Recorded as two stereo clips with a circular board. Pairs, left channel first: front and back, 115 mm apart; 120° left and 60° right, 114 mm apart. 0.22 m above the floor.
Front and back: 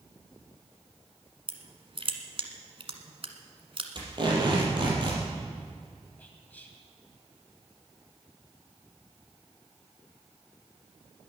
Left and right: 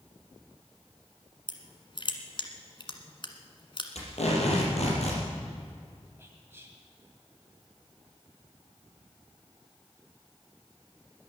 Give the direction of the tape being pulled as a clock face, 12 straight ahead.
8 o'clock.